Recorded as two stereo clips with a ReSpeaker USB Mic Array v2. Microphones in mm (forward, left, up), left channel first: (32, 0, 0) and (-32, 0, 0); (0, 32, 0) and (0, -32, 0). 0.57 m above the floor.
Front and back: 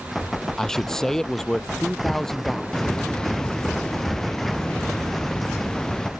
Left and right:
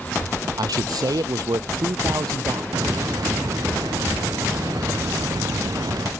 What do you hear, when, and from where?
0.6 s a man speaking: 80° right
2.7 s a hiss: 75° right